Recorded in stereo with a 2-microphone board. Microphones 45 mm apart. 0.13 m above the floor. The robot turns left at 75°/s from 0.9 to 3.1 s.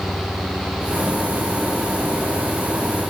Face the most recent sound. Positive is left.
No sound to turn to.